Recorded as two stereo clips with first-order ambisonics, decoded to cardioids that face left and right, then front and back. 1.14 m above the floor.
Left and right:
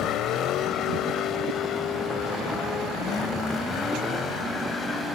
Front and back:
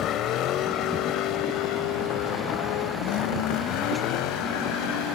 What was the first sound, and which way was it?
A vehicle, 45° left.